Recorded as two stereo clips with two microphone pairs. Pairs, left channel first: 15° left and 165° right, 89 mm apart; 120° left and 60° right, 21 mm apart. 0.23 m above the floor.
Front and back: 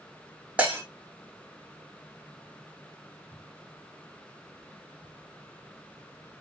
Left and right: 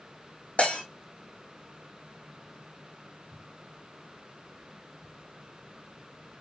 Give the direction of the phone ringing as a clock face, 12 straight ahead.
I don't hear a phone ringing.